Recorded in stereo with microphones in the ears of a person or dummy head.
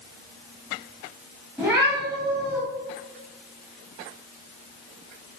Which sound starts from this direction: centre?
A cat meowing, at 1.6 s.